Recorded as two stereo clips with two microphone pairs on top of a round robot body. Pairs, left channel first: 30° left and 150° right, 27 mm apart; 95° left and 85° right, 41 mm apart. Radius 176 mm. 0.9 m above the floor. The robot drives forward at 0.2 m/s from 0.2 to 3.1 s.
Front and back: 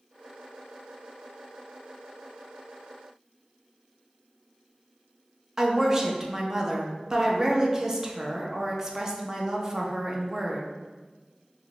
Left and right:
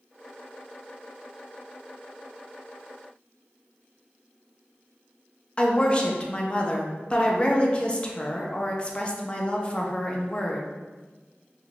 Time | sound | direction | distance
5.6 | a woman speaking | 145° left | 0.8 m